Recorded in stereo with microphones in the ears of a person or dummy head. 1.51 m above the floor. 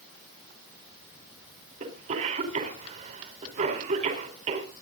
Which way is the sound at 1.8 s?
40° right (ahead or behind).